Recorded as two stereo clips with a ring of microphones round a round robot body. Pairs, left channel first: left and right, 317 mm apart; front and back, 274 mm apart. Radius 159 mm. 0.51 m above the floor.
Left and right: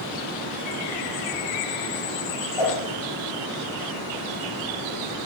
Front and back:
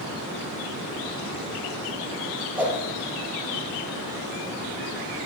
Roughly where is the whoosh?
Left.